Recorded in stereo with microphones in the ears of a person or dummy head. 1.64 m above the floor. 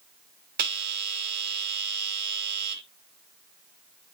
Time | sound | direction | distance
0.6 | a bell | 55° right (ahead or behind) | 1.0 m